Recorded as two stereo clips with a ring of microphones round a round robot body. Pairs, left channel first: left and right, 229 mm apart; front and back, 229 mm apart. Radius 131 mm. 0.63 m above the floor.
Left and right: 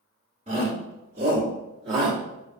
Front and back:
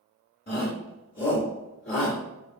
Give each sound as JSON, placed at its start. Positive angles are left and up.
{"t": 0.5, "sound": "a shout", "azimuth_deg": -35, "distance_m": 1.6}